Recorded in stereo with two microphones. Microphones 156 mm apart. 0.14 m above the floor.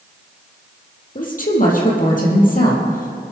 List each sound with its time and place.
1.1 s a woman speaking: 60° left (ahead or behind), 5 m